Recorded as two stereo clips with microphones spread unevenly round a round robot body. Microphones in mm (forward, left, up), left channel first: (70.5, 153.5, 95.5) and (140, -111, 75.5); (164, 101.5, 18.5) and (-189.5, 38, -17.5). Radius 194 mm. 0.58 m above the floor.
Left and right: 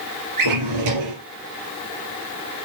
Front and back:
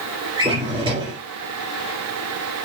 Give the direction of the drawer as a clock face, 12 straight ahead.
3 o'clock.